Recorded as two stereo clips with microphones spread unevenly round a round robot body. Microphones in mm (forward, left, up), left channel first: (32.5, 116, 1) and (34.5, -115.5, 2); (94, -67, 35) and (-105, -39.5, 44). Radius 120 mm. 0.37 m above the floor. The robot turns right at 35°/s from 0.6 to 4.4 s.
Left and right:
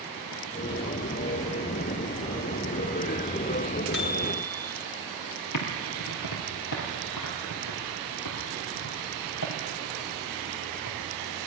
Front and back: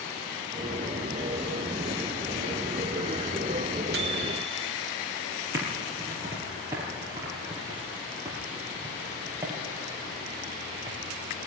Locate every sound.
3.9 s a microwave: 135° left, 2.5 m; by 4.7 s 150° left, 2.5 m
5.5 s typing on a keyboard: 95° left, 4.5 m